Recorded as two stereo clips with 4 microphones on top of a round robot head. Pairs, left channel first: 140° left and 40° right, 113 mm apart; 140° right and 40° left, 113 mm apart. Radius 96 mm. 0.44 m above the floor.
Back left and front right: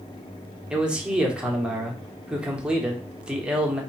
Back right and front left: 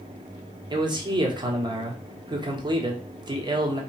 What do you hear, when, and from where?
0.7 s a man speaking: 35° left, 1.5 m